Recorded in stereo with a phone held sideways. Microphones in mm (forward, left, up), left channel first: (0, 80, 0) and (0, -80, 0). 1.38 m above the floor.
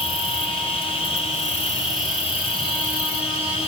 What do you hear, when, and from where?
0.0 s an insect: 35° left (ahead or behind), 1.5 m